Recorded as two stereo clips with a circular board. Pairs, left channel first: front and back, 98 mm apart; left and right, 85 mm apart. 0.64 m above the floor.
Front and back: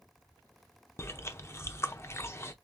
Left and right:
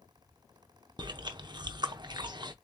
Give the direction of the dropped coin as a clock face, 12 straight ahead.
No dropped coin in this recording.